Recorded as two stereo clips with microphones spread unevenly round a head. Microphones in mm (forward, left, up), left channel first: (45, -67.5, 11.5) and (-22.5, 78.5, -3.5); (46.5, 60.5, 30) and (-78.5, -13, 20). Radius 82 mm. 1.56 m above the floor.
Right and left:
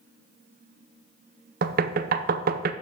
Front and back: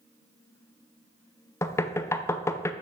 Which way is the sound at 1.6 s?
95° left.